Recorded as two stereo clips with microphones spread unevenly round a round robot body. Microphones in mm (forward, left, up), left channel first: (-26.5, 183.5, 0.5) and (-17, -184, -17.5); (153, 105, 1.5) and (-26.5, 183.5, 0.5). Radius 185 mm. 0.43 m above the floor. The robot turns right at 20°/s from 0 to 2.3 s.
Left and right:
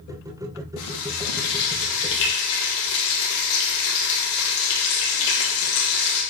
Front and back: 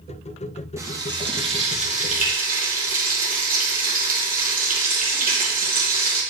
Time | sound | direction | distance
0.8 | frying | 80° left | 2.0 m